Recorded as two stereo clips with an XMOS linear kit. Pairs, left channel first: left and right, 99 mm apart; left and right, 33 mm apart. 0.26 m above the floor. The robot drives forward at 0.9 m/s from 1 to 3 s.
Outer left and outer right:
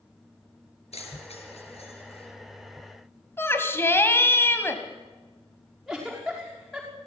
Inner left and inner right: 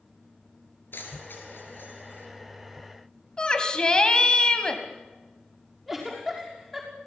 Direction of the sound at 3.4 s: 25° left (ahead or behind).